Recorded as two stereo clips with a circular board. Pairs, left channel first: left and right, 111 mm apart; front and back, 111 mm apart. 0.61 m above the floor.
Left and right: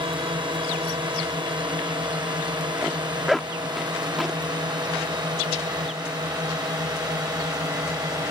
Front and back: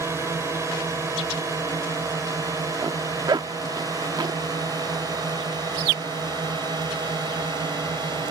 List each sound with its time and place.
0.0 s a drone: 120° right; by 8.3 s 135° right
2.8 s a zipper: straight behind